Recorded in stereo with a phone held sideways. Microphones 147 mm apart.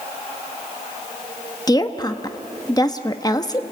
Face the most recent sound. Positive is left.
turn(degrees=25)  # may be behind; listen again after turning